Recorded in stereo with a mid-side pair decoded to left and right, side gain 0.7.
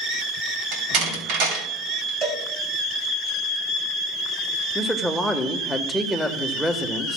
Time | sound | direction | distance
0.7 | a door slam | 65° right | 3.5 m
2.2 | a cowbell | 30° right | 3.5 m
4.8 | a man speaking | 5° left | 1.4 m